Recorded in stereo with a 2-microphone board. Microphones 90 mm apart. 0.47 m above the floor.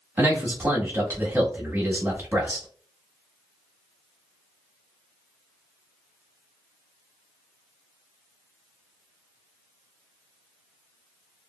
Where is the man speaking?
25° right (ahead or behind), 1.0 m.